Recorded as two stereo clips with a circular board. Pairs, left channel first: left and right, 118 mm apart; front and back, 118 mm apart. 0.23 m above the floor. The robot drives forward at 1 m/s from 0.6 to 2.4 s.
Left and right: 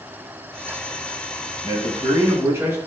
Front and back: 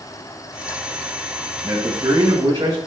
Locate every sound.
1.6 s a man speaking: 135° right, 1.8 m; by 2.8 s 150° right, 2.5 m